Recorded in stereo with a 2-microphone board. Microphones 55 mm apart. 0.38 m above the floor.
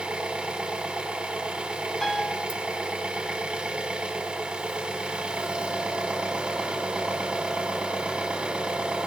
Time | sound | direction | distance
0.0 | an engine running | 20° right (ahead or behind) | 0.8 m
2.0 | a piano | 5° left (ahead or behind) | 0.8 m